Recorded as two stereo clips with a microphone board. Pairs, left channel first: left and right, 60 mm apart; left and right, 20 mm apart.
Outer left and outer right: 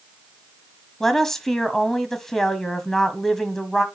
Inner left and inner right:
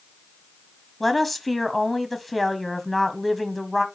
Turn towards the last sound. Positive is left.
turn(degrees=5)  # may be behind; listen again after turning